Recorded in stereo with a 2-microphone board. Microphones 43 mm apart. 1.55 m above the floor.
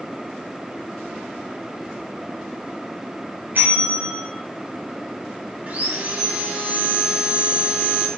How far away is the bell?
About 3.5 m.